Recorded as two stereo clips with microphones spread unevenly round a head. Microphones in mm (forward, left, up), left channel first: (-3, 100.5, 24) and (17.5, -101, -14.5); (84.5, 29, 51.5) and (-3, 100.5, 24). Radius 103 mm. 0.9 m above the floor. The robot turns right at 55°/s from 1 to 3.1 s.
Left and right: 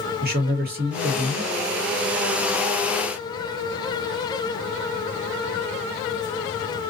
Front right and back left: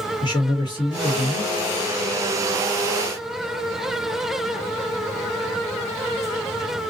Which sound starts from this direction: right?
A man speaking, at 0.2 s.